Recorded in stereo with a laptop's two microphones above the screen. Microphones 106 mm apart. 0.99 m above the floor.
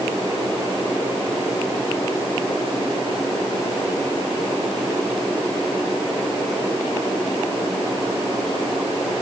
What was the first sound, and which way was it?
Only background noise.